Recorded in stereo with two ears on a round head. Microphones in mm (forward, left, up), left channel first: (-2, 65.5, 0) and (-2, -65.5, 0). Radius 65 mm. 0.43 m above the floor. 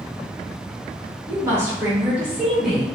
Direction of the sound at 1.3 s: 20° right (ahead or behind).